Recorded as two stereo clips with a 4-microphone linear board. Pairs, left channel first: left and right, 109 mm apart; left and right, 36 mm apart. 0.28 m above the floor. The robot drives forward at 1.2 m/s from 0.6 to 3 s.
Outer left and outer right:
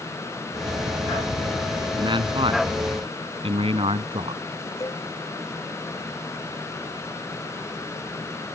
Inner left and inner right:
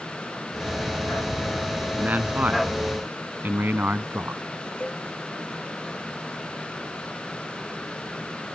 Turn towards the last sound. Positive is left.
turn(degrees=30)  # may be behind; listen again after turning